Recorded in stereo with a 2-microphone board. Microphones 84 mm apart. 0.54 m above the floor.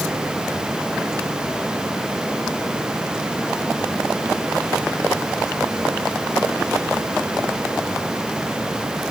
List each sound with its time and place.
Only background noise.